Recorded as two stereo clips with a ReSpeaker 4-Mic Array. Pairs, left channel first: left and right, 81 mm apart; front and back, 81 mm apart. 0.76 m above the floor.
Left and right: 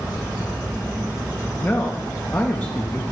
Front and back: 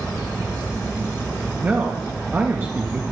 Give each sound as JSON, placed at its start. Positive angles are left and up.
{"t": 1.6, "sound": "a man speaking", "azimuth_deg": 140, "distance_m": 0.6}